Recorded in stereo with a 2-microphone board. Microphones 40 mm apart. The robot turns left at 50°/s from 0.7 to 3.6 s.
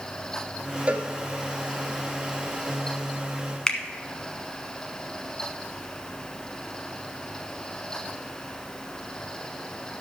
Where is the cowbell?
30° right (ahead or behind), 1.3 m; by 1.1 s 20° right (ahead or behind), 1.3 m.